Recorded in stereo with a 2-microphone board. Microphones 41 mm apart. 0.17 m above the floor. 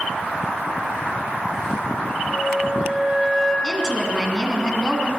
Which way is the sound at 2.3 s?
5° right (ahead or behind).